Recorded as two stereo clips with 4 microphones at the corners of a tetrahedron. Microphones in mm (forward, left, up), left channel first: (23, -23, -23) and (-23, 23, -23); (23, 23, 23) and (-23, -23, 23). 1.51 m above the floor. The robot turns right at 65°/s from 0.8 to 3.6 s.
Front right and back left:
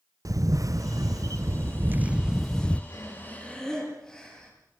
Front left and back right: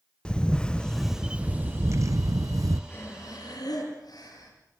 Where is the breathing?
10° right, 7 m; by 4.5 s 35° left, 7 m.